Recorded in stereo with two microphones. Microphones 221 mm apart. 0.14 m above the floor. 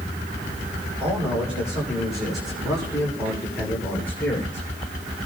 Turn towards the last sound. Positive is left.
turn(degrees=10)  # may be behind; listen again after turning